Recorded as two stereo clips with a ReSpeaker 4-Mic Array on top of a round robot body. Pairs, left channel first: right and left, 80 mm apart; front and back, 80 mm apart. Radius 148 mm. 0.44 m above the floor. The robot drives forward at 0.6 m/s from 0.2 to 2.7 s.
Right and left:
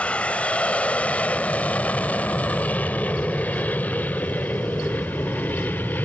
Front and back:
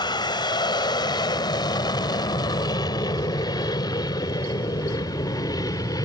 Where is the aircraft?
15° right; by 6.1 s 25° right.